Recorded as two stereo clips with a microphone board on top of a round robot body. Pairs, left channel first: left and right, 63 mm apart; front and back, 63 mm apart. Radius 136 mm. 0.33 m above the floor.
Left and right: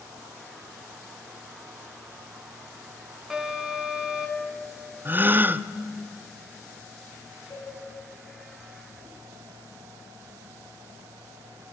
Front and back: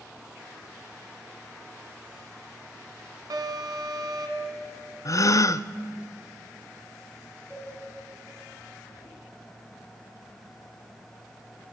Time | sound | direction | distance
3.3 | an alarm | 170° right | 3 m
5.0 | a gasp | 30° right | 0.6 m
7.5 | a cowbell | 40° left | 5.5 m